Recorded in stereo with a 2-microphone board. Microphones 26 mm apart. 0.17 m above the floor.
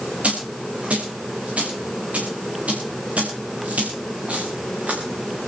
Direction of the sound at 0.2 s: 70° right (ahead or behind).